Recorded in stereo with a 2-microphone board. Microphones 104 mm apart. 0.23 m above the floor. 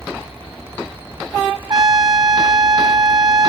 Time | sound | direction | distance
1.7 | a trumpet | 40° right (ahead or behind) | ?